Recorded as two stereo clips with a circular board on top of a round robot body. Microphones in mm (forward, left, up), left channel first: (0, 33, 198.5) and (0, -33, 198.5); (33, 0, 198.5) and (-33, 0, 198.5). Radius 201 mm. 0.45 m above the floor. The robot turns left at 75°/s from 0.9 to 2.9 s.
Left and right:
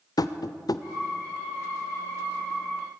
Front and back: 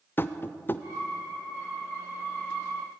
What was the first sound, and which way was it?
Tapping, 60° left.